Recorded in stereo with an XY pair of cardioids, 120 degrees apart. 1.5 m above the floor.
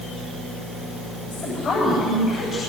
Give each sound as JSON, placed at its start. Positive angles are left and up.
{"t": 1.3, "sound": "a woman speaking", "azimuth_deg": 45, "distance_m": 8.5}